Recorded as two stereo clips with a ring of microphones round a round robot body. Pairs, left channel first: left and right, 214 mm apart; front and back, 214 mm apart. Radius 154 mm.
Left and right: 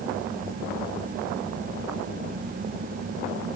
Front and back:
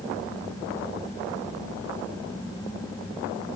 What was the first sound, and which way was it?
Only background noise.